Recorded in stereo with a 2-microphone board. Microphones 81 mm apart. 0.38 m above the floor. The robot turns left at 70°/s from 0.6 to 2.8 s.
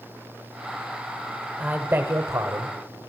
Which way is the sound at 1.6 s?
25° right.